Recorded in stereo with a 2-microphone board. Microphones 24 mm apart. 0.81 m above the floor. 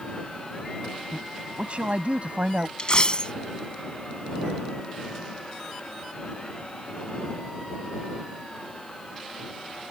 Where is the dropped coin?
40° left (ahead or behind).